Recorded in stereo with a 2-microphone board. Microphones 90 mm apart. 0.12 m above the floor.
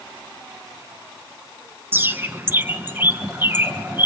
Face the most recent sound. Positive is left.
turn(degrees=-20)  # may be behind; listen again after turning